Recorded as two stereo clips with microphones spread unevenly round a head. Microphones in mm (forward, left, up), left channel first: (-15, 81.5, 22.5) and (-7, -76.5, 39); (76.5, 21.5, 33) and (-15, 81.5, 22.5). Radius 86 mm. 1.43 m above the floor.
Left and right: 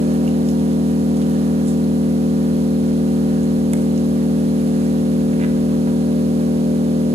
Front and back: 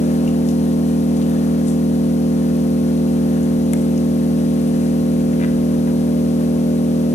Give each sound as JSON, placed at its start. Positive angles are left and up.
{"t": 0.0, "sound": "an engine running", "azimuth_deg": -35, "distance_m": 0.8}